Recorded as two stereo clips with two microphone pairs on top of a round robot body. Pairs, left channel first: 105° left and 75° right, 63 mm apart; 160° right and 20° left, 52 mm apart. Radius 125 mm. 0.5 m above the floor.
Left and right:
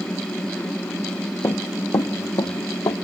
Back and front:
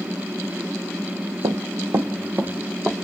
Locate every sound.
1.4 s running footsteps: 50° left, 1.1 m; by 3.0 s 85° left, 1.5 m